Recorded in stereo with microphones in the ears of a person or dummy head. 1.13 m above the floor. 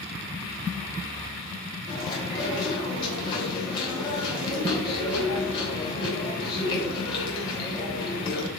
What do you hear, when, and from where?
1.9 s chewing: 30° left (ahead or behind), 3 m